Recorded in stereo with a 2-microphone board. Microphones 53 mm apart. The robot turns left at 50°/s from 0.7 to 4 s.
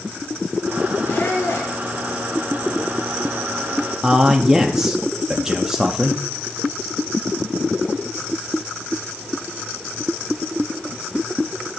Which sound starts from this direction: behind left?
A squeak, at 1.1 s.